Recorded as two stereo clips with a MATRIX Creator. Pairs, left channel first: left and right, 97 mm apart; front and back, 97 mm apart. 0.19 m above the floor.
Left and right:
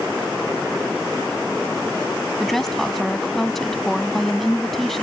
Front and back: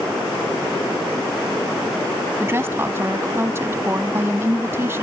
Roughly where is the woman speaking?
Behind.